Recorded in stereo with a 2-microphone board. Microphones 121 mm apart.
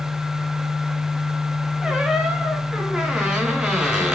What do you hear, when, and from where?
1.8 s a squeak: 5° right (ahead or behind), 2 m